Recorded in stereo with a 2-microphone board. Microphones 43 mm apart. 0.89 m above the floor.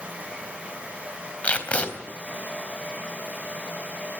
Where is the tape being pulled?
30° left (ahead or behind), 3.5 m.